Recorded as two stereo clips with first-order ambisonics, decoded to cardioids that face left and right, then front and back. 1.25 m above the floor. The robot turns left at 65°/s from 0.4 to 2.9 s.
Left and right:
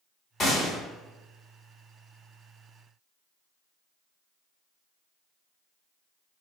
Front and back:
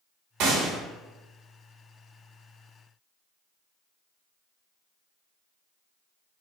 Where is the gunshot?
155° left, 1.0 m; by 0.8 s 130° left, 1.0 m.